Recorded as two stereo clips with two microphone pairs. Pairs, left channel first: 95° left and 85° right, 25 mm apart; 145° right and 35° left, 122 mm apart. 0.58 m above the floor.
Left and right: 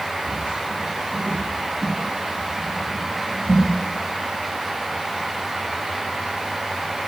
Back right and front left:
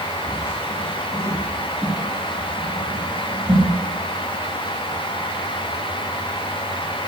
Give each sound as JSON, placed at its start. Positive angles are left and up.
{"t": 0.3, "sound": "footsteps", "azimuth_deg": -80, "distance_m": 2.5}